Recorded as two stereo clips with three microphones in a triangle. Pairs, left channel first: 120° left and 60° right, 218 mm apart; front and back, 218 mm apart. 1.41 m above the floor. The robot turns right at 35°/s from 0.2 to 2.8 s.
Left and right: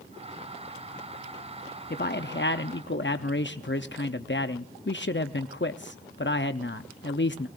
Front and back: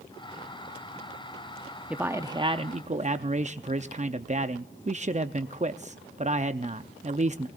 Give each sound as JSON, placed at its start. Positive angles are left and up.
{"t": 1.9, "sound": "a man speaking", "azimuth_deg": 95, "distance_m": 0.6}